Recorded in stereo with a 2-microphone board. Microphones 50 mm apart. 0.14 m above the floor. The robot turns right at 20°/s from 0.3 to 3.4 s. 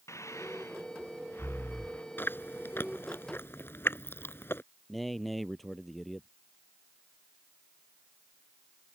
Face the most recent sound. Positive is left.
turn(degrees=0)  # may be behind; listen again after turning